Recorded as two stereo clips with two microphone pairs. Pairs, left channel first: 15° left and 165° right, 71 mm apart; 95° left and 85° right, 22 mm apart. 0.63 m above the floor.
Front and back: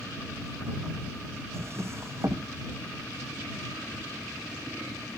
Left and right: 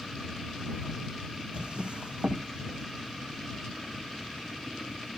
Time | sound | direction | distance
1.5 | a drawer | 120° right | ?